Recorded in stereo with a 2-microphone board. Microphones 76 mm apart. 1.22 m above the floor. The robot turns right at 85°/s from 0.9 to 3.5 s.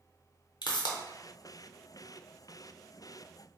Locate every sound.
0.6 s a pop: 80° left, 0.6 m; by 1.0 s 85° left, 0.6 m